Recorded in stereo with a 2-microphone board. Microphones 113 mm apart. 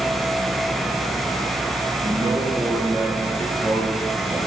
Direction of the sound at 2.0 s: 40° right (ahead or behind).